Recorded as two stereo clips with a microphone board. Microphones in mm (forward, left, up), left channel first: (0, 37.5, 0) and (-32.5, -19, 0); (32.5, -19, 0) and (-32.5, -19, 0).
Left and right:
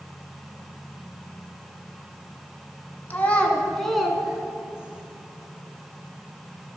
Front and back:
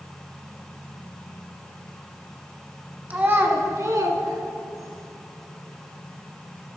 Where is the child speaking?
120° left, 1.5 m; by 5.0 s 170° left, 2.5 m.